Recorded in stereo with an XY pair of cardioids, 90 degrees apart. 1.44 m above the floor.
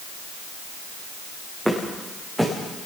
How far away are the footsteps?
About 8 m.